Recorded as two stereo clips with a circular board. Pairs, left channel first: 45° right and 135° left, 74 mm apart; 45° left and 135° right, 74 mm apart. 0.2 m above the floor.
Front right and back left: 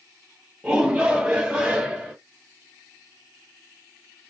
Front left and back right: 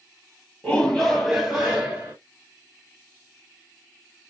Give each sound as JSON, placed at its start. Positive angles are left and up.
{"t": 0.6, "sound": "a shout", "azimuth_deg": 90, "distance_m": 1.1}